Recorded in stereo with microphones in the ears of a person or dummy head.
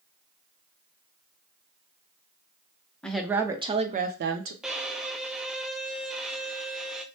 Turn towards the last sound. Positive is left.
turn(degrees=0)  # may be behind; listen again after turning